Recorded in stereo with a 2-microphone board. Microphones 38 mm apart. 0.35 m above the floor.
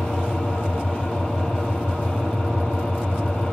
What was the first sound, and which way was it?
An engine running, 20° left (ahead or behind).